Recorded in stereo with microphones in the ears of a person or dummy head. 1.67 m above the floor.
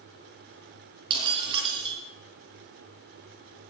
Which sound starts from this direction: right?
Breaking glass, at 1.1 s.